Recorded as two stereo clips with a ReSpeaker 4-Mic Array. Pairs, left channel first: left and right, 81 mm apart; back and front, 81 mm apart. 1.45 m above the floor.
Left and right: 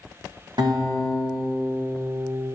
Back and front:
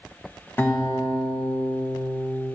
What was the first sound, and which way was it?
A guitar, 115° right.